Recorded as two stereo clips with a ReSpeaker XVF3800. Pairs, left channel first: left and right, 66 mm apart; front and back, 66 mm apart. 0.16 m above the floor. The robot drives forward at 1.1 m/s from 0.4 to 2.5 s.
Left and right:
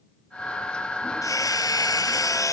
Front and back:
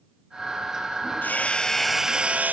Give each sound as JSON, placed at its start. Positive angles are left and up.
{"t": 1.2, "sound": "hammering", "azimuth_deg": 60}